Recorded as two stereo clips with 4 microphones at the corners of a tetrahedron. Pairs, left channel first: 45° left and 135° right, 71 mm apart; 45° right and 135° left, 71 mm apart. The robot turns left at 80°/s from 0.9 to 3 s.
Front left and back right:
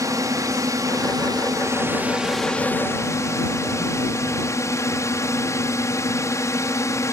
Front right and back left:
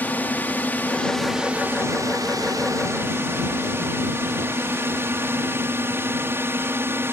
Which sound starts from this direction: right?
A drone, at 0.0 s.